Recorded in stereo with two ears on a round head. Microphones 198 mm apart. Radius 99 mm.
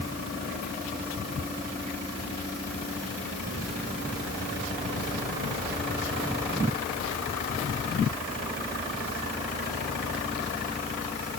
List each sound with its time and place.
Only background noise.